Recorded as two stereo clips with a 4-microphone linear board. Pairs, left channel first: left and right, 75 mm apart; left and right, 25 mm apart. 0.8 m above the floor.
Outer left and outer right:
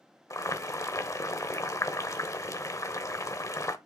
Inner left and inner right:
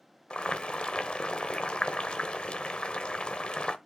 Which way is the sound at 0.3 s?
50° left (ahead or behind).